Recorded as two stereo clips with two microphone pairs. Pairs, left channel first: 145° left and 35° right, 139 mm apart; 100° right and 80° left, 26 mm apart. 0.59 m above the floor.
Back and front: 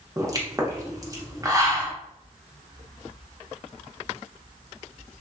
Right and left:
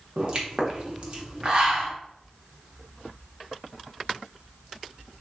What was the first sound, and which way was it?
A pop, 25° left.